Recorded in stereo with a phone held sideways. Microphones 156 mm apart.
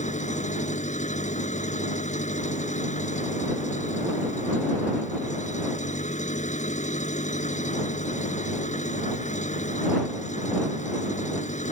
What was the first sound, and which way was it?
An engine running, 50° left (ahead or behind).